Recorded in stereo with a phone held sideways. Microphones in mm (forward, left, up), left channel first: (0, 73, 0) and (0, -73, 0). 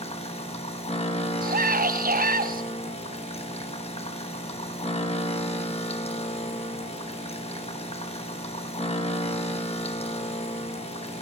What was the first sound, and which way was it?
A machine running, 45° left (ahead or behind).